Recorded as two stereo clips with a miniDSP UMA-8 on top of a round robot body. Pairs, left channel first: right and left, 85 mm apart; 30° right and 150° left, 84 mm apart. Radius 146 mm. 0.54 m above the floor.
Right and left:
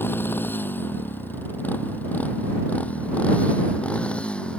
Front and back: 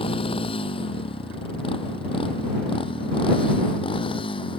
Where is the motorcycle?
25° right; by 4.6 s 10° right.